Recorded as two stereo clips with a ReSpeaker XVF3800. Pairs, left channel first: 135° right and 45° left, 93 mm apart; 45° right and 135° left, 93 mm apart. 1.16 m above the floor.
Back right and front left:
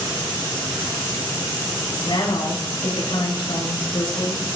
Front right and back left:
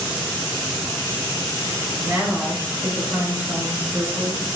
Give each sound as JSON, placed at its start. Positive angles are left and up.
{"t": 2.0, "sound": "a woman speaking", "azimuth_deg": -160, "distance_m": 6.5}